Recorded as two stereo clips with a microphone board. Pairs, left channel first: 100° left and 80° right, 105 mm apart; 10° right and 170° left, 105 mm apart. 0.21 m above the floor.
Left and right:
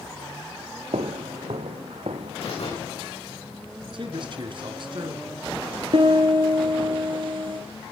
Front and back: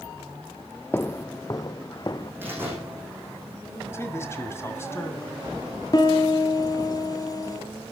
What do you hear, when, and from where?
0.9 s footsteps: 80° right, 0.5 m; by 2.3 s 65° right, 1.3 m
2.4 s a door slam: 100° left, 9 m
3.9 s a man speaking: 70° right, 2.5 m
5.9 s a piano: 60° right, 1.9 m